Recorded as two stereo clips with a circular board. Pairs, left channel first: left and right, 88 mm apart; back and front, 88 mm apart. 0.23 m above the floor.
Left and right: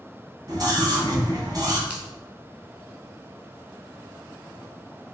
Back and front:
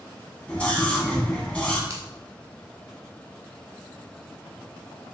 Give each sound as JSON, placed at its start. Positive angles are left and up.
{"t": 0.5, "sound": "a scream", "azimuth_deg": -110, "distance_m": 2.0}
{"t": 1.9, "sound": "a finger snap", "azimuth_deg": -25, "distance_m": 1.6}